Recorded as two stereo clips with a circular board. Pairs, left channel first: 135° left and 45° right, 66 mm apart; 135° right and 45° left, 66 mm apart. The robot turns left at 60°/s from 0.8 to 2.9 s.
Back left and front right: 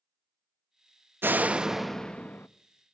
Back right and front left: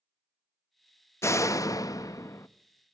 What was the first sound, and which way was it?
A door slam, 95° right.